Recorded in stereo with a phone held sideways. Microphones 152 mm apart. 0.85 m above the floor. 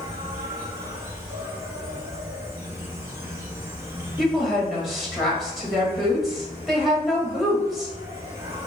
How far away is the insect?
About 1.8 m.